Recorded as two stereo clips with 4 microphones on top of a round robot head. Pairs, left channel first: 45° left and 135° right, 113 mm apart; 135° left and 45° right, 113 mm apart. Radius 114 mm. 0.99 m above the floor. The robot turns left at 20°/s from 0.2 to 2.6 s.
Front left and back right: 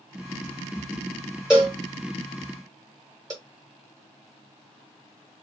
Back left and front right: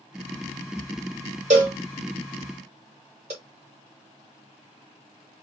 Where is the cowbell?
55° right, 0.9 m; by 3.3 s 75° right, 0.9 m.